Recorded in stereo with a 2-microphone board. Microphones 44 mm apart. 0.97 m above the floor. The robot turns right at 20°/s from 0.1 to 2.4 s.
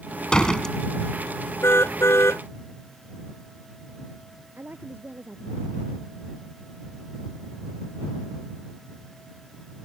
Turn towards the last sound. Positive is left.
turn(degrees=-50)  # may be behind; listen again after turning